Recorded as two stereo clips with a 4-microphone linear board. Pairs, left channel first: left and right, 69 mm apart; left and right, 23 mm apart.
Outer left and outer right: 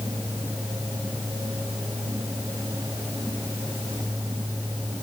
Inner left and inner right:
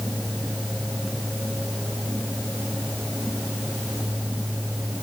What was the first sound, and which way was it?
Only background noise.